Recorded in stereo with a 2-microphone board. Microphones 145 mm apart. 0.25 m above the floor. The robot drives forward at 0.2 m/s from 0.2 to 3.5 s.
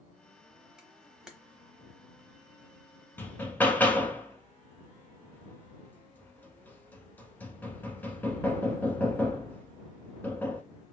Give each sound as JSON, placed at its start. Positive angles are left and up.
{"t": 0.8, "sound": "a camera shutter", "side_deg": -5, "distance_m": 0.9}
{"t": 3.2, "sound": "hammering", "side_deg": 15, "distance_m": 0.7}